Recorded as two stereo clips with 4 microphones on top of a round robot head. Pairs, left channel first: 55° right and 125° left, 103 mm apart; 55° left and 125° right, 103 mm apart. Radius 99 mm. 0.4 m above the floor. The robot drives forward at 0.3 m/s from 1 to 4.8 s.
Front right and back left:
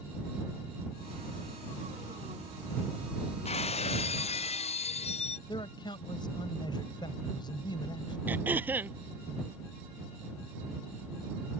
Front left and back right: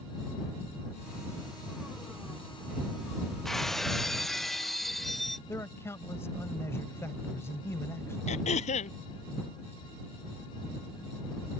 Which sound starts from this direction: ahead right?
Breaking glass, at 3.5 s.